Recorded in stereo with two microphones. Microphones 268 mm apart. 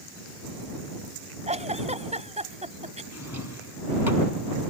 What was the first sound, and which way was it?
A giggle, 25° right (ahead or behind).